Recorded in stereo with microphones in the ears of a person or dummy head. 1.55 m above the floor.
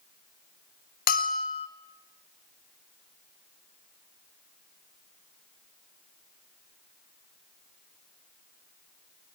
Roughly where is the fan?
I don't hear a fan.